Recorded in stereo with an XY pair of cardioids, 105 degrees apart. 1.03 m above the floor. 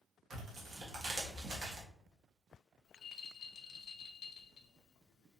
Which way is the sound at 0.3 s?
55° right.